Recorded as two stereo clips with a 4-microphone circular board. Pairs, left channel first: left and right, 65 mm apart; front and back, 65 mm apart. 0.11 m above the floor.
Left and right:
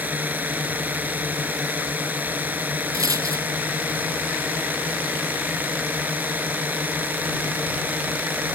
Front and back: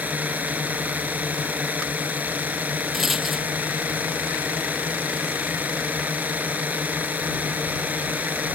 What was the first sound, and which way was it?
A drone, 135° right.